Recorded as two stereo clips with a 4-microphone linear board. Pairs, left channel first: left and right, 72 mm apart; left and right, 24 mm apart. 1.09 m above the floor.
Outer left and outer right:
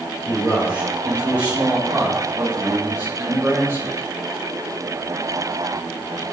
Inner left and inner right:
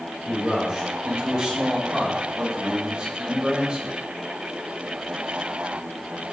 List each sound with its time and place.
0.2 s a man speaking: 15° right (ahead or behind), 4.5 m; by 4.0 s 35° right (ahead or behind), 2 m